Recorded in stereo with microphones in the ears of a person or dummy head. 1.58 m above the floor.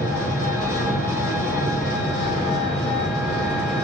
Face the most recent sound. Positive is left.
turn(degrees=5)  # may be behind; listen again after turning